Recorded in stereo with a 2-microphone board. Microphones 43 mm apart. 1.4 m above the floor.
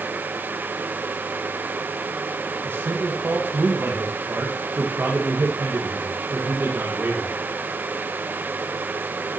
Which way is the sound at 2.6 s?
60° right (ahead or behind).